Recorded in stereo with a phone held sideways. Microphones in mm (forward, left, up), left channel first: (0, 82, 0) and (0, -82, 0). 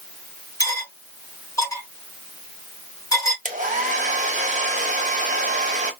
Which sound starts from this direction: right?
A hair dryer, at 3.5 s.